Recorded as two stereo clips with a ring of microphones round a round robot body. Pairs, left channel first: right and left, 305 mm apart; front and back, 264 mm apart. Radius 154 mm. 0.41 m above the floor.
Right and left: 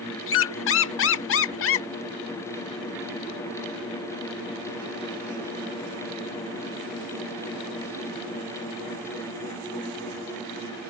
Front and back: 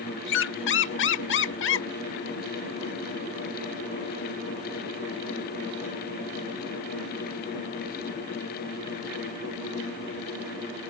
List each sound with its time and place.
0.3 s a squeak: 45° right